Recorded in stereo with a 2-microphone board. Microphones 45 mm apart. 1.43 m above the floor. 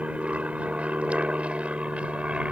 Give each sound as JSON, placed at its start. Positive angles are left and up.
{"t": 0.0, "sound": "an aircraft", "side_deg": -25}